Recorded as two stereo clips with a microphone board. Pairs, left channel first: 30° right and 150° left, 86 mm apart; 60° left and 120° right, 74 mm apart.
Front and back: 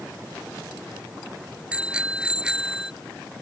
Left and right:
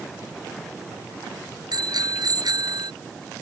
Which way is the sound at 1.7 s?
135° right.